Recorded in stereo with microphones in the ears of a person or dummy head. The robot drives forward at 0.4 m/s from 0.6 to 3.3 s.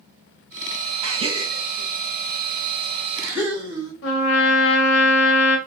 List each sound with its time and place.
1.0 s a gasp: 35° right (ahead or behind), 0.5 m; by 3.9 s 10° right (ahead or behind), 1.3 m
4.0 s a trumpet: 75° left (ahead or behind), 0.7 m